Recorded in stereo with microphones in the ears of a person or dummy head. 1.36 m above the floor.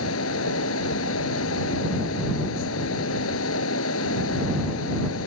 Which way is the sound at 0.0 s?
85° left.